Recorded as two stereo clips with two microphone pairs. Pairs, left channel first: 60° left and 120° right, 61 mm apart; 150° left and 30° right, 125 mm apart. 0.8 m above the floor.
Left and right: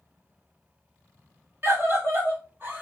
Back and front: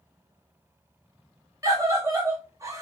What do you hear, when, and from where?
1.6 s a scream: 90° right, 1.7 m; by 2.8 s 80° right, 1.2 m